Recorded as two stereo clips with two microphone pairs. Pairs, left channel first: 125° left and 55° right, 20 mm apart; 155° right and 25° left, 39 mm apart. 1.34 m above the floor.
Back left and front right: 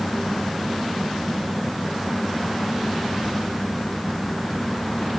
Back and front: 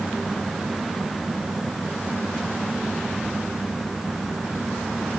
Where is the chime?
No chime in this recording.